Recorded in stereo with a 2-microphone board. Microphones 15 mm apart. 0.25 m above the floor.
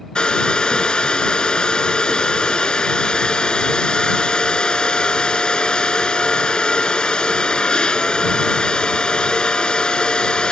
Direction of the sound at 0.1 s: 85° left.